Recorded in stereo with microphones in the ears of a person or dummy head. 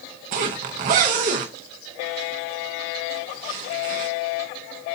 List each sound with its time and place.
0.3 s a zipper: 30° right (ahead or behind), 0.8 m